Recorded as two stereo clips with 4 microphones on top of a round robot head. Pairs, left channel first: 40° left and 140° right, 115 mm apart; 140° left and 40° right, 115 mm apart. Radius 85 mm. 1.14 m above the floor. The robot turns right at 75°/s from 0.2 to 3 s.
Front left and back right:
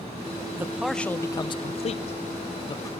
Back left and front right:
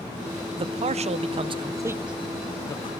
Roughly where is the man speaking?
Right.